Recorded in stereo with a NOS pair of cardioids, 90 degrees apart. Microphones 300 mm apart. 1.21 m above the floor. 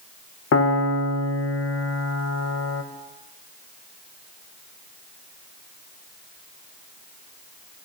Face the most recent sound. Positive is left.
turn(degrees=50)